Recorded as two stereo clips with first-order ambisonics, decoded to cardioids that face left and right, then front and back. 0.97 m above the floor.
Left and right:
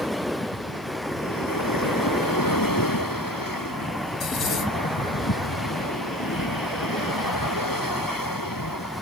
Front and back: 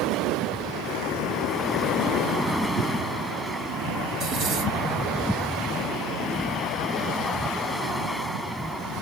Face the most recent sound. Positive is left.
turn(degrees=140)